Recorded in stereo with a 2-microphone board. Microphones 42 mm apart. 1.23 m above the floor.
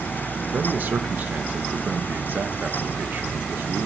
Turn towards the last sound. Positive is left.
turn(degrees=-40)  # may be behind; listen again after turning